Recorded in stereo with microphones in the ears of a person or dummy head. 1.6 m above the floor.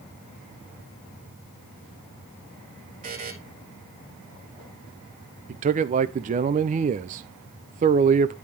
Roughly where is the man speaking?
Right.